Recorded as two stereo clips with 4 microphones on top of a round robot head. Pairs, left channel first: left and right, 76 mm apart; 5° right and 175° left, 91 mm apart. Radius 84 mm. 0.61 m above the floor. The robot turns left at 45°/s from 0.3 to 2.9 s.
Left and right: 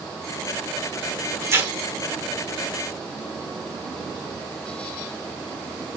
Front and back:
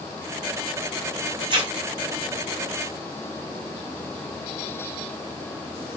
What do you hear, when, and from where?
1.4 s tearing paper: 140° right, 1.2 m; by 1.7 s 155° right, 1.2 m